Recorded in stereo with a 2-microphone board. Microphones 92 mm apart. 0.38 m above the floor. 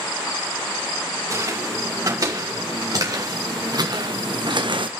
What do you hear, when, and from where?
1.3 s footsteps: 35° right (ahead or behind), 5.5 m; by 4.9 s 65° right (ahead or behind), 1.3 m